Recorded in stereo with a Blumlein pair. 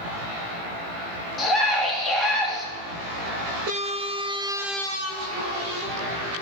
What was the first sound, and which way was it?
A scream, 15° left.